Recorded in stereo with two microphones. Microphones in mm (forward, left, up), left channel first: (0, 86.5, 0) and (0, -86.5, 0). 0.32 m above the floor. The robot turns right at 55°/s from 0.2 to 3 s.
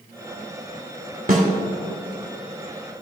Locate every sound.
1.3 s a snare drum: 55° right (ahead or behind), 1.4 m; by 1.5 s 45° right (ahead or behind), 1.4 m